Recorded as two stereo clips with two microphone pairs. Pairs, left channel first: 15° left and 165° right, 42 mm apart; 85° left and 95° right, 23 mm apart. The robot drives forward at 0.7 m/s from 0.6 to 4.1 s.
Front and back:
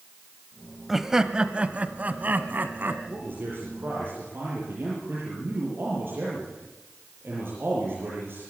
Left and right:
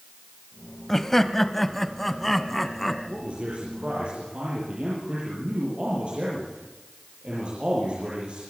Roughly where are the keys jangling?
I don't hear keys jangling.